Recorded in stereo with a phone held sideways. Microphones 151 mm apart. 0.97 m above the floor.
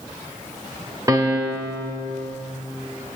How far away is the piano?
About 1.2 m.